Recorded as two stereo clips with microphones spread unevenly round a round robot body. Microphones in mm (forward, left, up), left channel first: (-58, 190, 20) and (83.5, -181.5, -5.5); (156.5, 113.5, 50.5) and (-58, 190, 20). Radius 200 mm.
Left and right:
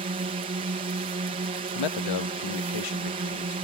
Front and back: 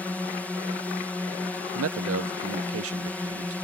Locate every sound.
0.0 s a drone: 110° right
1.8 s a man speaking: 145° left